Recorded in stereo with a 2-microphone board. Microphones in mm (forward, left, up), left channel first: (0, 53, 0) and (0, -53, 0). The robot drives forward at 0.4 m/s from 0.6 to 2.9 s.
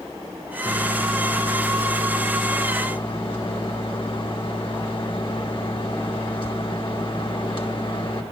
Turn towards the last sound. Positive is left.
turn(degrees=50)  # may be behind; listen again after turning